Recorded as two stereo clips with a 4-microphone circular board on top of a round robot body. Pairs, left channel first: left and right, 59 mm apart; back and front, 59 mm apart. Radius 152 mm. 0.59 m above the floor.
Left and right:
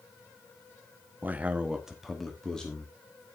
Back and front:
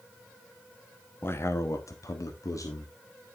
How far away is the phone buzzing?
No phone buzzing in this recording.